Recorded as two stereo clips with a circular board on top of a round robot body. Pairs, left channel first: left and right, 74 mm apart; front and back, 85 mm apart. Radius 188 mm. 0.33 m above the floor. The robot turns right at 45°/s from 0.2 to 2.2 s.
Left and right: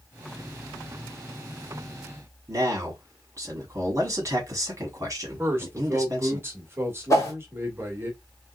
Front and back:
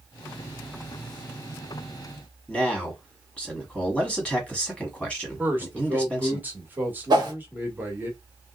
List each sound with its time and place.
2.5 s a man speaking: 75° right, 1.5 m
5.4 s a man speaking: 125° right, 1.6 m
7.1 s a whoosh: 140° left, 0.9 m